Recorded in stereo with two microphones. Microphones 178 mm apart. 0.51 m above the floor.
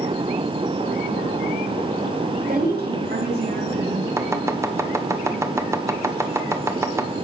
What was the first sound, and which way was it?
A woman speaking, 55° right (ahead or behind).